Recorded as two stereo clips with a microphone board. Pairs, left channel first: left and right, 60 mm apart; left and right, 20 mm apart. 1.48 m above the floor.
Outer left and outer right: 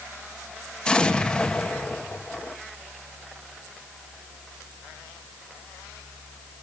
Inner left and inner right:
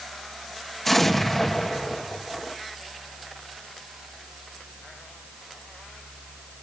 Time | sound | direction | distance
0.8 | an explosion | 15° left (ahead or behind) | 1.5 m